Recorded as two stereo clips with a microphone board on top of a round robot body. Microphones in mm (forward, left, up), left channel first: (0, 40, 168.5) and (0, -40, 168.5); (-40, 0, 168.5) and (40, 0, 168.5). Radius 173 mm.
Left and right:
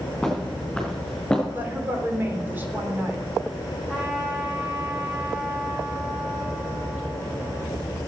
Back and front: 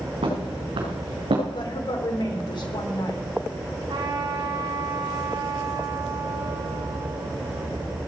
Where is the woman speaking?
155° right, 3.5 m.